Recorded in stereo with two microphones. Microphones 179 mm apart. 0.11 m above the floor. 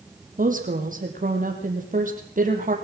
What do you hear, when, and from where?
0.4 s a woman speaking: 45° right (ahead or behind), 4 m